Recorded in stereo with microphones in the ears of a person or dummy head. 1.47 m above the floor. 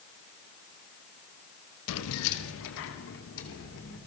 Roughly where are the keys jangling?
Left.